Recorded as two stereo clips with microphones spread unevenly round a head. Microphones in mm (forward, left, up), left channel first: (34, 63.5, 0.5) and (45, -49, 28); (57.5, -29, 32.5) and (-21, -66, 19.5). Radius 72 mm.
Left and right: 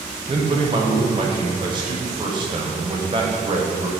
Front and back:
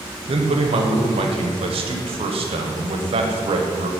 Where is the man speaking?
140° right, 1.1 m.